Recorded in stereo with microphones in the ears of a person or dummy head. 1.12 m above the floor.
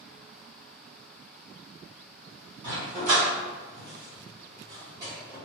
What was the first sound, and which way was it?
A dog barking, 40° right (ahead or behind).